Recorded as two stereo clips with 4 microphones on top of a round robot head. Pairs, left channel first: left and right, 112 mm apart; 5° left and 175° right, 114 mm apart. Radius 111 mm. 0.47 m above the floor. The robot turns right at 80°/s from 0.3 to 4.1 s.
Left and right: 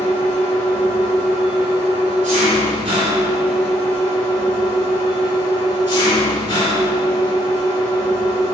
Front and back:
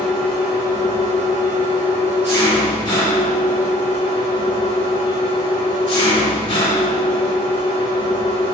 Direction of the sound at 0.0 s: 90° left.